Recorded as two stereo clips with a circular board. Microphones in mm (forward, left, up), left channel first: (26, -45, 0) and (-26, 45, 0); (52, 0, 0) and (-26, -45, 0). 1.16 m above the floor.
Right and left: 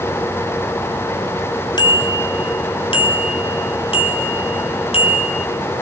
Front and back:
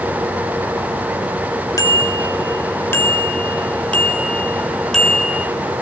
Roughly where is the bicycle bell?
Ahead.